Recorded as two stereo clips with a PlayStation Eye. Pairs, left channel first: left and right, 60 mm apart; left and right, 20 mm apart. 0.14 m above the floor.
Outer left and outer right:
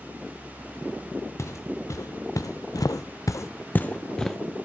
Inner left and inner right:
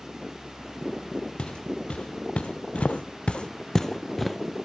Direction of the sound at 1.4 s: 55° left (ahead or behind).